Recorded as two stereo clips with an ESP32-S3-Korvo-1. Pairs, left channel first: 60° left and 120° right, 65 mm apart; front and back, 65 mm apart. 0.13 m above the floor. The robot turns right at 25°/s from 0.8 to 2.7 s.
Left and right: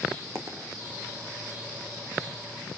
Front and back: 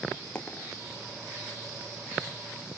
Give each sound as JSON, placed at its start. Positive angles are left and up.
{"t": 0.3, "sound": "a dropped coin", "azimuth_deg": -75, "distance_m": 3.0}